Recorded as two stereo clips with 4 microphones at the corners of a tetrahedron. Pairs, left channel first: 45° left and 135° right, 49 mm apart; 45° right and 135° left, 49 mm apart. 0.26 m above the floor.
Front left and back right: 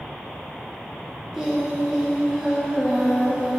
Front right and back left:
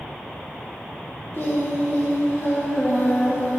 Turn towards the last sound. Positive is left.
turn(degrees=-55)